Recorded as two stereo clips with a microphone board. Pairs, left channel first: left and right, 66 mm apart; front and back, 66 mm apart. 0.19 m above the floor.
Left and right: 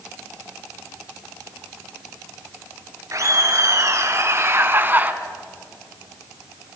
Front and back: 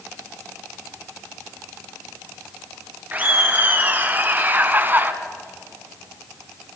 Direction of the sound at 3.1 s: 120° right.